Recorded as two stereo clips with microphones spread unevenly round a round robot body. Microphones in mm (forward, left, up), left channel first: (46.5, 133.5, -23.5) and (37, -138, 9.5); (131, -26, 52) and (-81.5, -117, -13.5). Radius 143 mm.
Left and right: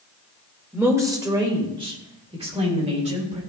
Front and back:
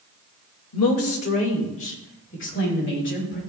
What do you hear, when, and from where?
0.7 s a woman speaking: 5° right, 2 m; by 3.4 s 25° right, 6 m